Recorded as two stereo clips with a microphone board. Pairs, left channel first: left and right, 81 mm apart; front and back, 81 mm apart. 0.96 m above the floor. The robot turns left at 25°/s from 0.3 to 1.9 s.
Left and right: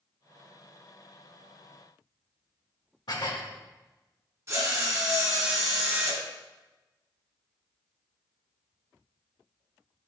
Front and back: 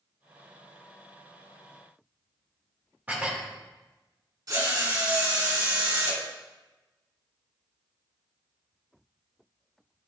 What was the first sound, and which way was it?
Dishes clattering, 110° left.